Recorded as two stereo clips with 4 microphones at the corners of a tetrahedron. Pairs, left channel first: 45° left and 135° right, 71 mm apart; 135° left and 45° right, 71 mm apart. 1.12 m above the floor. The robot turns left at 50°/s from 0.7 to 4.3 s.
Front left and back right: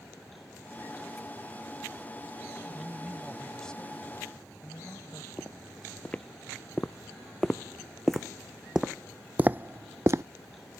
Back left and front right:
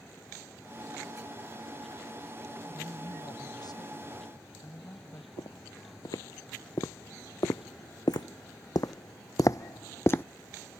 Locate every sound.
2.7 s a woman speaking: 175° left; by 5.3 s 95° left
5.4 s footsteps: 110° left; by 10.2 s 170° right